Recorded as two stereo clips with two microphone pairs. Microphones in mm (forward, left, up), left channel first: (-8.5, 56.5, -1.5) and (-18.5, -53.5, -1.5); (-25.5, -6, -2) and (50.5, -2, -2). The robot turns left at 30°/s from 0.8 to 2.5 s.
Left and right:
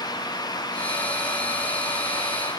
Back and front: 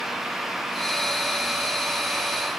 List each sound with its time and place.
Only background noise.